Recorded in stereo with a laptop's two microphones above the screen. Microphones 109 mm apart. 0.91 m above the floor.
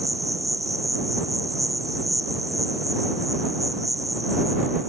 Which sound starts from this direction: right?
An insect, at 0.0 s.